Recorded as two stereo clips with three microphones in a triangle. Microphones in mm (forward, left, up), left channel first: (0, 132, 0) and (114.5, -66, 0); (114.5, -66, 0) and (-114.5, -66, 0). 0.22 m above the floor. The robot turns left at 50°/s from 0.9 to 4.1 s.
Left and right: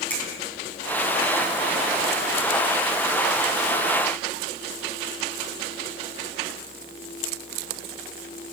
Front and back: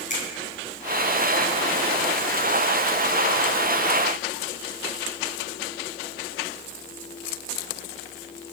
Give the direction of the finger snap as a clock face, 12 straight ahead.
11 o'clock.